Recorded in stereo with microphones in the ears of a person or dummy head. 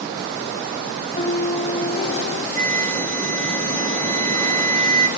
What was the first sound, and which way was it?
A piano, 40° left (ahead or behind).